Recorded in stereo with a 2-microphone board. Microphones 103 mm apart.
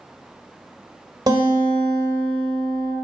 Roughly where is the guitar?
Right.